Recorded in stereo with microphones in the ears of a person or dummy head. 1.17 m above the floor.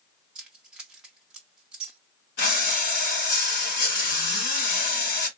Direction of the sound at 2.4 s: 55° left (ahead or behind).